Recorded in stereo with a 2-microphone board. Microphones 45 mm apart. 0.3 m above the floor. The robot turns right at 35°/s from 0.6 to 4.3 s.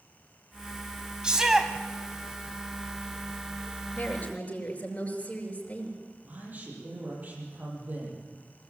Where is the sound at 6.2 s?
40° right (ahead or behind), 9.5 m.